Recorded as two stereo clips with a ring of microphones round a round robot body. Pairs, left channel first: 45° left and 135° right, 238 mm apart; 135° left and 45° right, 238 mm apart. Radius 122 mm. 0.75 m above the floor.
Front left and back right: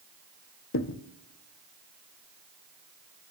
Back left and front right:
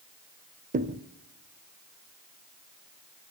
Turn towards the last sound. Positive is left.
turn(degrees=10)